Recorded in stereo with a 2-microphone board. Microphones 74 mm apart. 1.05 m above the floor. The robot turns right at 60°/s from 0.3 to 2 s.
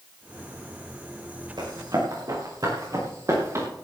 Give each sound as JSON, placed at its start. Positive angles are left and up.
{"t": 1.6, "sound": "running footsteps", "side_deg": -80, "distance_m": 6.5}